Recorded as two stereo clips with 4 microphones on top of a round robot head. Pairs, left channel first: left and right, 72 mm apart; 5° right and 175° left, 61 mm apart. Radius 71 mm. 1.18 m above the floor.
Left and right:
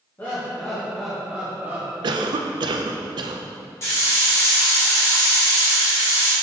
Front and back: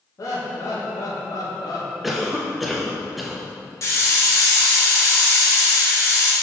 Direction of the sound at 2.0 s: 95° right.